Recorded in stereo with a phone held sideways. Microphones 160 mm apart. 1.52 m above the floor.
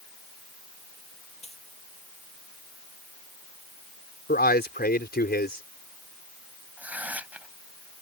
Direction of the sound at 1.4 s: 40° left (ahead or behind).